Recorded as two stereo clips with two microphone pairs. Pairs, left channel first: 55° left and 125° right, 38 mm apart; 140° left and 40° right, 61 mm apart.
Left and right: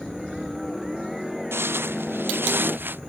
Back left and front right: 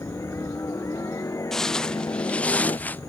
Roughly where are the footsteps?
Behind right.